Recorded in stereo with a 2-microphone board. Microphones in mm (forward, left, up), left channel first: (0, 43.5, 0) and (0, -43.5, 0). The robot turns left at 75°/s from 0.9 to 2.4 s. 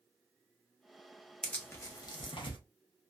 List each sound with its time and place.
1.4 s tearing paper: 10° left (ahead or behind), 0.6 m; by 2.6 s 75° left (ahead or behind), 0.6 m